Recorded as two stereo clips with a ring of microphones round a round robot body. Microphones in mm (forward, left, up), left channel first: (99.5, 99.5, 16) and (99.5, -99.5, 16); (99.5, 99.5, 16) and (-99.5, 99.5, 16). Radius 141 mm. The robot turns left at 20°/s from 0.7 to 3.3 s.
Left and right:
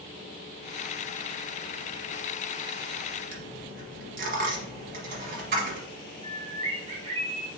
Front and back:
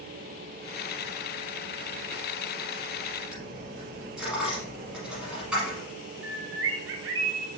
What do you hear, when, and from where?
3.3 s a dropped coin: 95° right, 1.1 m
6.2 s a bird: 165° right, 0.6 m